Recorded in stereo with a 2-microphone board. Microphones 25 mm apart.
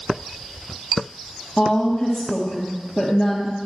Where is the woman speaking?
15° left (ahead or behind), 3 m.